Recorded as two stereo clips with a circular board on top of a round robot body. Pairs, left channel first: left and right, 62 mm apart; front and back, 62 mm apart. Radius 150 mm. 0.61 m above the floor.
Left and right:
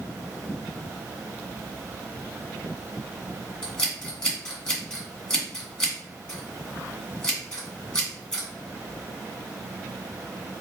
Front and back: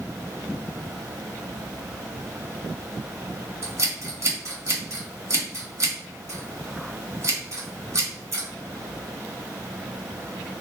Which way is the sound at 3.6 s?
160° left.